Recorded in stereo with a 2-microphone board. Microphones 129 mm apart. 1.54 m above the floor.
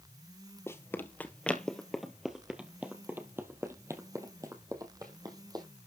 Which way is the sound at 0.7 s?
20° left (ahead or behind).